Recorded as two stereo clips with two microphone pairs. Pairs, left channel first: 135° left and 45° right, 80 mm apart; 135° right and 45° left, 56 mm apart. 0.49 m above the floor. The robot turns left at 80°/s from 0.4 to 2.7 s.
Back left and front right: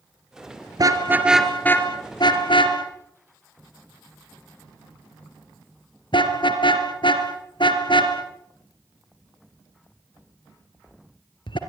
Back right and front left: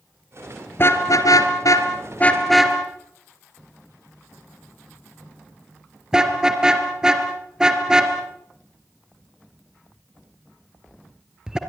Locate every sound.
0.8 s a car horn: 85° right, 3.5 m; by 11.6 s 120° left, 3.5 m